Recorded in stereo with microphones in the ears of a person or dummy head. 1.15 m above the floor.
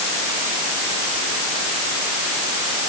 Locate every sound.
Only background noise.